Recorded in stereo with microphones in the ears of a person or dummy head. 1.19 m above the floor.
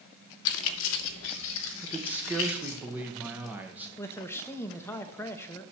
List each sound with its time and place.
0.5 s keys jangling: 70° left (ahead or behind), 0.7 m; by 2.8 s 80° left, 2 m
1.8 s a man speaking: 10° right (ahead or behind), 0.9 m
4.0 s a man speaking: 10° left (ahead or behind), 0.7 m